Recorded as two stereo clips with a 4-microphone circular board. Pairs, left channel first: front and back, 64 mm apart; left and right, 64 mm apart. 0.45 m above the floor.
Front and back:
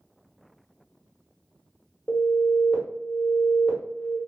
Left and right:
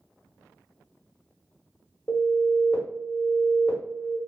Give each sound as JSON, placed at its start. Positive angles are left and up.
{"t": 2.1, "sound": "an alarm", "azimuth_deg": 65, "distance_m": 1.4}